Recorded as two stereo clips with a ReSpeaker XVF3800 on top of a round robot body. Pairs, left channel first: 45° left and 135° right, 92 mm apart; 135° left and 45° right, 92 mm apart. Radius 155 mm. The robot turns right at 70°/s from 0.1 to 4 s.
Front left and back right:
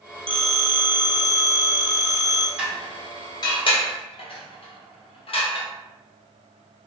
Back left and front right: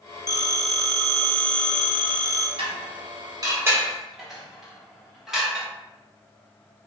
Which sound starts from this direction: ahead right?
Dishes clattering, at 2.6 s.